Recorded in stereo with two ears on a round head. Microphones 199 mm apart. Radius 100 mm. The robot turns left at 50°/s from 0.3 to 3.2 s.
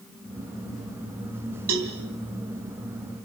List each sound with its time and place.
1.7 s a cowbell: 70° right (ahead or behind), 3 m; by 1.9 s 60° right (ahead or behind), 3 m